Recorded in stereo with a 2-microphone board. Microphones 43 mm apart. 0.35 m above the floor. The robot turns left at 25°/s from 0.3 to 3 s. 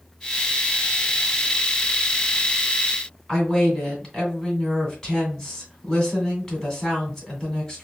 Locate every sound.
3.3 s a woman speaking: 10° left (ahead or behind), 2 m